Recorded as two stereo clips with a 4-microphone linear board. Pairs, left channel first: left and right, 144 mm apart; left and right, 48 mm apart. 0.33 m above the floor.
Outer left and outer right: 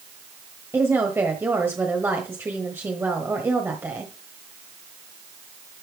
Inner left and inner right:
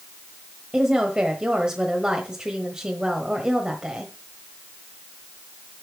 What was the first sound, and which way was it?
A woman speaking, 15° right (ahead or behind).